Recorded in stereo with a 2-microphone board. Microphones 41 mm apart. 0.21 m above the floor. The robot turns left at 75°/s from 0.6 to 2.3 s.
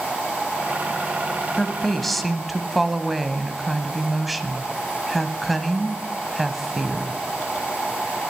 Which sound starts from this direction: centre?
A woman speaking, at 1.6 s.